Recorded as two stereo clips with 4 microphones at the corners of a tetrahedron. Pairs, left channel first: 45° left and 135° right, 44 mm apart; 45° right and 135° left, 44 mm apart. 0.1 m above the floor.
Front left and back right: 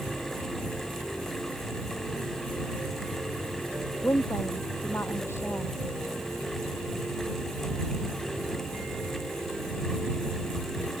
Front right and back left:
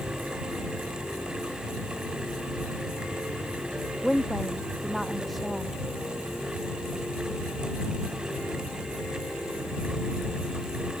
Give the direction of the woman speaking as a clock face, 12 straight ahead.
10 o'clock.